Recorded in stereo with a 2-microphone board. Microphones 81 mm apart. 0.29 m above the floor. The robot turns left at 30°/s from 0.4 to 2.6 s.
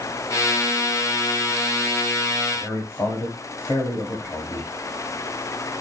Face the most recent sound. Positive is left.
turn(degrees=35)  # may be behind; listen again after turning